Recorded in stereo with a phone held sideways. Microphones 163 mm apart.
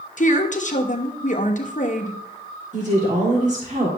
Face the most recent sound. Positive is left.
turn(degrees=-50)  # may be behind; listen again after turning